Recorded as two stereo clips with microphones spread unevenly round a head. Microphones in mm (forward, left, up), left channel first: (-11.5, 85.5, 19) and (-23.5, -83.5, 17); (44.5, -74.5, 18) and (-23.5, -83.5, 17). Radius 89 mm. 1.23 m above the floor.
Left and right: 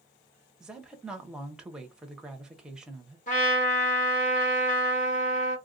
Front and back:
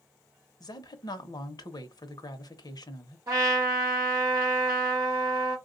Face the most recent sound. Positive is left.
turn(degrees=130)